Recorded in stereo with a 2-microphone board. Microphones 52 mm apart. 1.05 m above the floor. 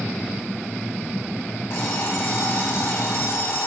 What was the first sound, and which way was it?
An alarm clock, 55° left (ahead or behind).